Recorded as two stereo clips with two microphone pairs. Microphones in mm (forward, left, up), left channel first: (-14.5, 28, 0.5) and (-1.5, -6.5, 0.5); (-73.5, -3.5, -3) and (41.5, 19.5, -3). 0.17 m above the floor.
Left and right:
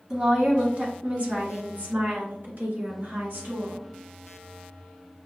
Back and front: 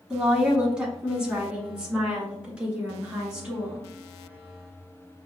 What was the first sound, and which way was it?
A woman speaking, 60° right.